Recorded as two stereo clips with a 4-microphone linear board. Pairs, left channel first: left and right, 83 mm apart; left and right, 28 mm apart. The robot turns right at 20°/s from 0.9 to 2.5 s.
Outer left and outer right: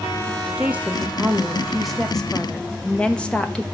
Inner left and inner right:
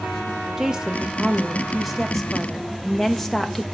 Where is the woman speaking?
20° right, 1.0 m; by 3.6 s 15° left, 1.0 m.